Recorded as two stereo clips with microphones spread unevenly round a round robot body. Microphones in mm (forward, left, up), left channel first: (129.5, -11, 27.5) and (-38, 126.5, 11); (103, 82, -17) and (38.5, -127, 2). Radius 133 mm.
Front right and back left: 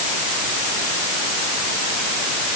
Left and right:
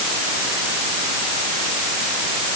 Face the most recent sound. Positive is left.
No sound to turn to.